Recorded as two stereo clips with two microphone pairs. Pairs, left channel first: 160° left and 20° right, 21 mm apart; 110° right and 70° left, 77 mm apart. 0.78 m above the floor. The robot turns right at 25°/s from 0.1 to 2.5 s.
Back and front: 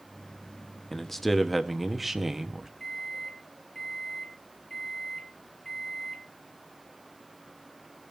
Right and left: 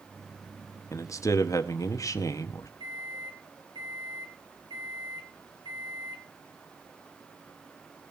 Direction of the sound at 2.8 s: 90° left.